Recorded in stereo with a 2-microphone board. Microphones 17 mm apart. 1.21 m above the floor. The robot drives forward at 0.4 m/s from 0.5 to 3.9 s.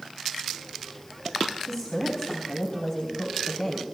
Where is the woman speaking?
45° left (ahead or behind), 3.5 m; by 3.8 s 55° left (ahead or behind), 3 m.